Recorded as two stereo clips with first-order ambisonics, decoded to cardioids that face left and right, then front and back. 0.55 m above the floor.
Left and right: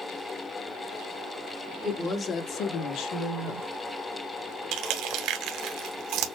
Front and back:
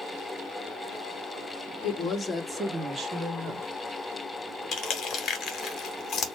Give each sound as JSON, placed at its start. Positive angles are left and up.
{"t": 1.8, "sound": "a woman speaking", "azimuth_deg": 0, "distance_m": 1.0}
{"t": 4.7, "sound": "crushing", "azimuth_deg": -55, "distance_m": 1.1}